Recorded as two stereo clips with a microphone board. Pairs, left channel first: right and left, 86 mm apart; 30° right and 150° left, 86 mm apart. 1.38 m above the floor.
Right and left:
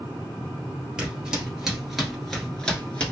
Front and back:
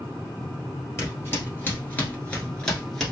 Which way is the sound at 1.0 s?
15° left.